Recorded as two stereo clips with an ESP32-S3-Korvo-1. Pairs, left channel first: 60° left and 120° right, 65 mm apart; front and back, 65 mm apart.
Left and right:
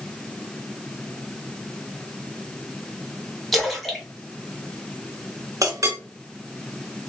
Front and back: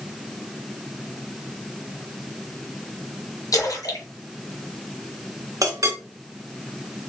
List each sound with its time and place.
3.5 s a splash: 25° right, 1.7 m
5.6 s a clink: 150° right, 1.5 m